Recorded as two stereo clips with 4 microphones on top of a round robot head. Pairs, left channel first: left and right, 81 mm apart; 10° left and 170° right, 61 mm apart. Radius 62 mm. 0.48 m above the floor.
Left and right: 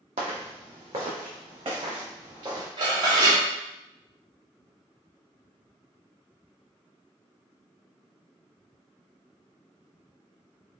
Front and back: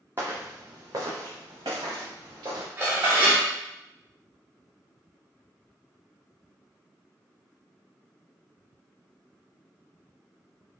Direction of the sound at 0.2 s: 100° right.